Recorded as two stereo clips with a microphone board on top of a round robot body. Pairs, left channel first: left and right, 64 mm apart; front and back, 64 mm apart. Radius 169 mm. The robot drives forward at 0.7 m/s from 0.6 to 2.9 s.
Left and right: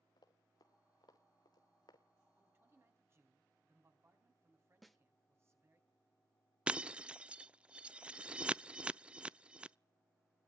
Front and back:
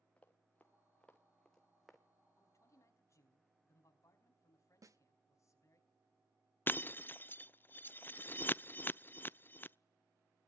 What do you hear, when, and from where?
0.2 s running footsteps: 70° left, 2.5 m; by 2.0 s 95° left, 1.1 m
2.4 s a man speaking: 35° right, 5 m; by 5.8 s 40° right, 4.5 m
4.8 s a snare drum: straight behind, 1.4 m
6.7 s breaking glass: 30° right, 0.5 m